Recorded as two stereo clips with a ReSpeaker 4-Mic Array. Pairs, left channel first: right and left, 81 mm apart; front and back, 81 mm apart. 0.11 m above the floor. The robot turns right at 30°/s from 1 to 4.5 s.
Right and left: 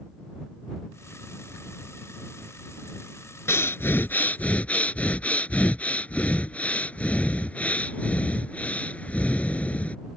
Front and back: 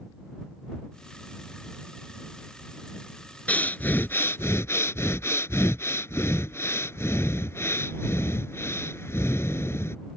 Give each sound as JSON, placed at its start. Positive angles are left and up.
{"t": 3.5, "sound": "breathing", "azimuth_deg": -60}